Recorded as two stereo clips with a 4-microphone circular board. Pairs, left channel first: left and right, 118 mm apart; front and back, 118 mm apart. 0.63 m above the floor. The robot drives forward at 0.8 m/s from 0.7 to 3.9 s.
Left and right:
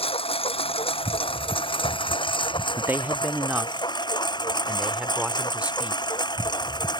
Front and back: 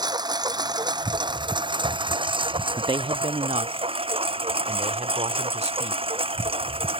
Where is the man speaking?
150° right; by 6.0 s 170° right.